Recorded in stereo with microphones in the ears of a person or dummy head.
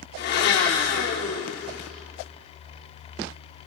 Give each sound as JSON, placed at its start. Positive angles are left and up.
{"t": 0.2, "sound": "a blender", "side_deg": 55, "distance_m": 4.0}